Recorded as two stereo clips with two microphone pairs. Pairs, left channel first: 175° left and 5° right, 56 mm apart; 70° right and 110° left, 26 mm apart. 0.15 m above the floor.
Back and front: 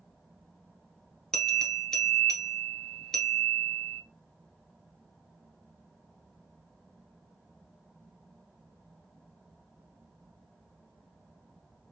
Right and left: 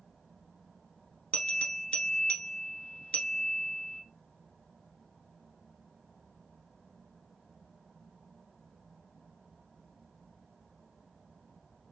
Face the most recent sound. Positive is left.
turn(degrees=-105)